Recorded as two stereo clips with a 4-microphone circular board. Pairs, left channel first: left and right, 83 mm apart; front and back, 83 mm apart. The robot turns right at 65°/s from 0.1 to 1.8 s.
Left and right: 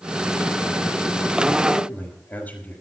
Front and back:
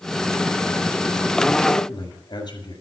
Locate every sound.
1.7 s a man speaking: 15° left, 5.5 m; by 2.8 s 20° left, 5.5 m